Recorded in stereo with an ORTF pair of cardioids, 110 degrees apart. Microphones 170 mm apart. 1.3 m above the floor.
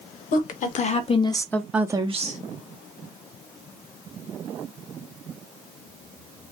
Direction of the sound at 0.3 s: 55° left.